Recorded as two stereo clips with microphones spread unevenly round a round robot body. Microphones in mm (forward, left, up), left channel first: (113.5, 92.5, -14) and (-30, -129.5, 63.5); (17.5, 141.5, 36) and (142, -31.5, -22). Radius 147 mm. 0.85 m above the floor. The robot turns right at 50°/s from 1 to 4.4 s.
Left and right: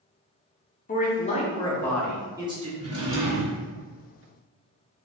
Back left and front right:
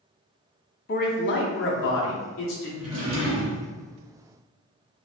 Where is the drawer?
60° right, 1.7 m; by 3.6 s 15° right, 1.7 m.